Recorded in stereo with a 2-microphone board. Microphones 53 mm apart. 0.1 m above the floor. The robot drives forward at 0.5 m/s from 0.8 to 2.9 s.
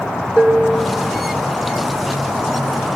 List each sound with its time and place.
0.4 s dishes clattering: 20° right (ahead or behind), 1.3 m